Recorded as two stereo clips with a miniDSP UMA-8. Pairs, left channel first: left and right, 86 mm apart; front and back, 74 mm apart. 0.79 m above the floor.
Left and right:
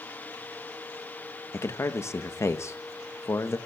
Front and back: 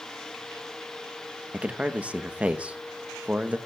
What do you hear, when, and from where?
1.5 s a man speaking: 120° left, 0.7 m